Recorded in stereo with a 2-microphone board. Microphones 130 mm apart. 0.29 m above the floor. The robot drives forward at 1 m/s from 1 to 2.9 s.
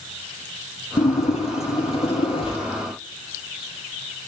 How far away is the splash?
About 5 m.